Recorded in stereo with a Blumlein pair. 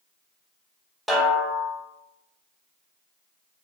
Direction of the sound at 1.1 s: 5° right.